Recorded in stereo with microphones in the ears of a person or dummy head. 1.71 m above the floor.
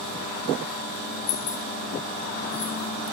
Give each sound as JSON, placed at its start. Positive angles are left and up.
{"t": 1.3, "sound": "keys jangling", "side_deg": 65, "distance_m": 1.4}